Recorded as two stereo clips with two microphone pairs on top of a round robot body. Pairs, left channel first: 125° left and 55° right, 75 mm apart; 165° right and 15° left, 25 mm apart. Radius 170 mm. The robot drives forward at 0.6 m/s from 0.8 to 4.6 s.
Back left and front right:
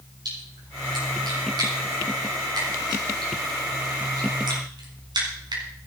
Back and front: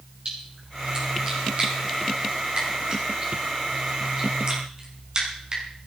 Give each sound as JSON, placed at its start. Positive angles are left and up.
{"t": 0.2, "sound": "a splash", "azimuth_deg": -30, "distance_m": 7.5}